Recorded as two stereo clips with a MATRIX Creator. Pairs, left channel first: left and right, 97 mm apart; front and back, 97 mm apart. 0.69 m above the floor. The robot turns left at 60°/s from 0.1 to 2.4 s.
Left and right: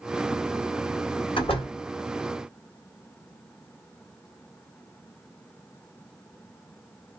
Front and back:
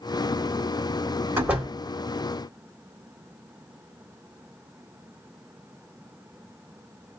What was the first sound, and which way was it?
A door slam, 115° left.